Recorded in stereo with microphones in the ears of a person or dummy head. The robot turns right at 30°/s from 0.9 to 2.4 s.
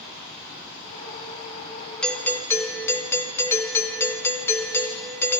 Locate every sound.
2.0 s a doorbell: 5° left (ahead or behind), 0.8 m; by 5.4 s 15° left (ahead or behind), 0.8 m